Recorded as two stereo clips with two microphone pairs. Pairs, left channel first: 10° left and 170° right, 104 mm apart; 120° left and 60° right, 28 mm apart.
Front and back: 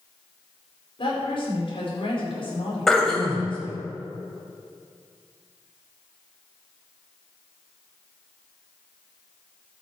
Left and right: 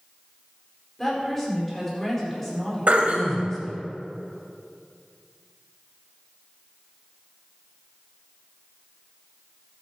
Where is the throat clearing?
75° right, 2 m.